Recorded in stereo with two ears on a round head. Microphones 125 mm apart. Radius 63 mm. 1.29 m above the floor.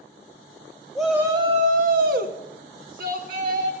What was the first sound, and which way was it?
A shout, centre (ahead or behind).